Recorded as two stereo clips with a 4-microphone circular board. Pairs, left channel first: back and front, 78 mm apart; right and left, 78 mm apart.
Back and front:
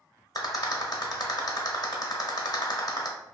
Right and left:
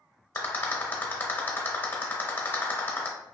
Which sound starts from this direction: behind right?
A rattle, at 0.3 s.